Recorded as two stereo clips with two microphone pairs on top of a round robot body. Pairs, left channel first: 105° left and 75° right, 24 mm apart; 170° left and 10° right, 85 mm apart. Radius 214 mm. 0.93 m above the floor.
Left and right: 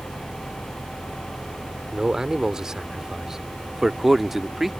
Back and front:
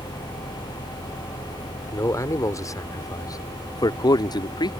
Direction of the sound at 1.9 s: 135° right.